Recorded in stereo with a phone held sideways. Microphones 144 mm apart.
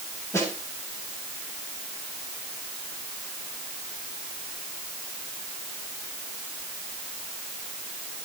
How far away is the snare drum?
About 9.5 m.